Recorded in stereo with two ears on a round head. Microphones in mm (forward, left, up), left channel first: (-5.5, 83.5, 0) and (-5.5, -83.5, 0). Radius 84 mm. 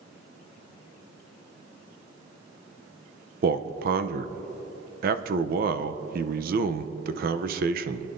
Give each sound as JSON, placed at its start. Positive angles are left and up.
{"t": 3.4, "sound": "a man speaking", "side_deg": -50, "distance_m": 0.6}